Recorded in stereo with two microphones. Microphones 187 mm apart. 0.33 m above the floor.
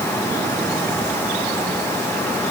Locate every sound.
Only background noise.